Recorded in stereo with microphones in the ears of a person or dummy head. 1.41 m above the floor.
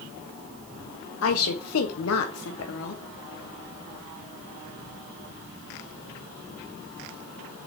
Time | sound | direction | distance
1.2 | a woman speaking | 75° left (ahead or behind) | 0.8 m